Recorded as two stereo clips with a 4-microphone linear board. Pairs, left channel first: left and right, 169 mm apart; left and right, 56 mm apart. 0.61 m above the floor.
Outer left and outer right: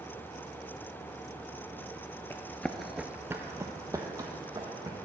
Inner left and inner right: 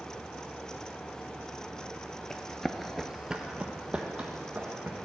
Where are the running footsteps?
15° left (ahead or behind), 0.7 m; by 5.0 s 20° right (ahead or behind), 2.0 m.